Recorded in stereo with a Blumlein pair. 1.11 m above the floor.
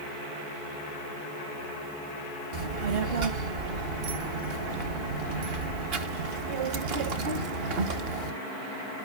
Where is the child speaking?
45° right, 1.3 m.